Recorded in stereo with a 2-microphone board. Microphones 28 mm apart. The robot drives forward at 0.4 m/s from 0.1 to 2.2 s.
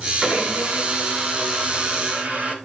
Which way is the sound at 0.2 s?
40° right (ahead or behind).